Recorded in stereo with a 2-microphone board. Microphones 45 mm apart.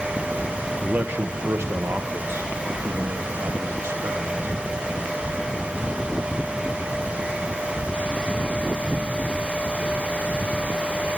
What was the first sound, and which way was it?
A man speaking, 40° right (ahead or behind).